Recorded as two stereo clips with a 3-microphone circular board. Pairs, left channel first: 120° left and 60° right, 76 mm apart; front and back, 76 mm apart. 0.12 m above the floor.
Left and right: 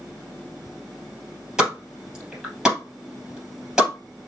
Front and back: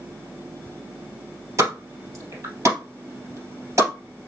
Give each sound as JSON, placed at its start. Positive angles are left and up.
{"t": 1.6, "sound": "a pop", "azimuth_deg": -140, "distance_m": 3.0}